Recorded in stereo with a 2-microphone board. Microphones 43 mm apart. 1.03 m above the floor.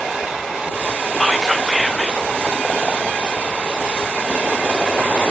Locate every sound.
1.2 s whispering: 5° left (ahead or behind), 0.5 m